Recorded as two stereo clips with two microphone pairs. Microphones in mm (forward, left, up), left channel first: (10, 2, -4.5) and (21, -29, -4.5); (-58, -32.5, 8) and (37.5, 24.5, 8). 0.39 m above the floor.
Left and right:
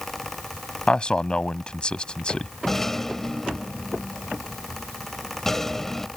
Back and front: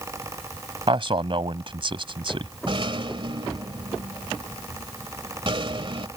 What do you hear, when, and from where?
0.9 s a man speaking: 55° left
2.7 s a rattle: 35° left